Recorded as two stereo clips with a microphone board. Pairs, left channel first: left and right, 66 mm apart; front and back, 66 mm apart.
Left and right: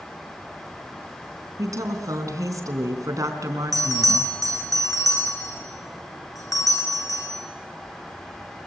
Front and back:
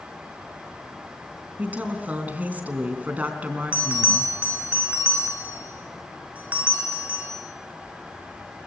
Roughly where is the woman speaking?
Behind right.